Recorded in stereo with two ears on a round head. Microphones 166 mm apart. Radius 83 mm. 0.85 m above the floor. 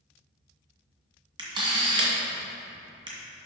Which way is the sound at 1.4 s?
25° right (ahead or behind).